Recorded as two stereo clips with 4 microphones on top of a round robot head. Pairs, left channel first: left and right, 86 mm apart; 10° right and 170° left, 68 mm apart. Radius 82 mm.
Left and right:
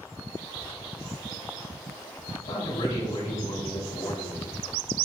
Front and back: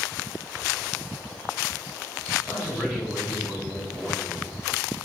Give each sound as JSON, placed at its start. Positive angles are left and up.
{"t": 2.4, "sound": "a man speaking", "azimuth_deg": 70, "distance_m": 3.5}